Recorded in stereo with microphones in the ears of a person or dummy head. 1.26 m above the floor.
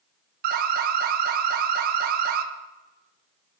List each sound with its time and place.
0.4 s an alarm: 50° right (ahead or behind), 1.2 m